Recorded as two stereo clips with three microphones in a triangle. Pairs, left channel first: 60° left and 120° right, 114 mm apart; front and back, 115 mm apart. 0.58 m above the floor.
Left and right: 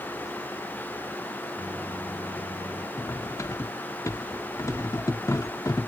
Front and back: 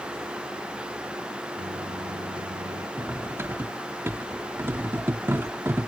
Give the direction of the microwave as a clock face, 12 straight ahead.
7 o'clock.